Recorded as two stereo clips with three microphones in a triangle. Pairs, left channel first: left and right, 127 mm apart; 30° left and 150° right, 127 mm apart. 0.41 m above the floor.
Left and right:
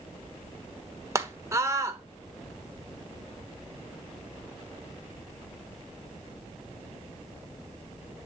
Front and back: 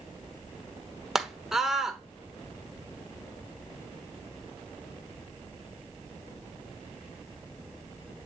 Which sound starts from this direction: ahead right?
A scream, at 1.1 s.